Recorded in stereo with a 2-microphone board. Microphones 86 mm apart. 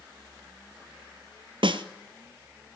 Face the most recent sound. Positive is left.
turn(degrees=-80)